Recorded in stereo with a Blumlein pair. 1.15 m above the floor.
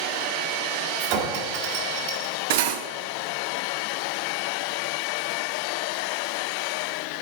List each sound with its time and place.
1.0 s a clink: 45° right, 1.7 m
2.5 s cutlery clinking: 50° right, 0.6 m